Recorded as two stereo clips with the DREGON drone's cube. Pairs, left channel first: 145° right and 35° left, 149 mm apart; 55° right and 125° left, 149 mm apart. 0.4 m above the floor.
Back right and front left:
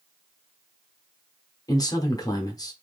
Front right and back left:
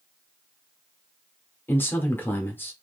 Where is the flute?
I don't hear a flute.